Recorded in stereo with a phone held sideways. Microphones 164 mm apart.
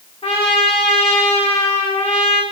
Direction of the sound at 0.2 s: 35° left (ahead or behind).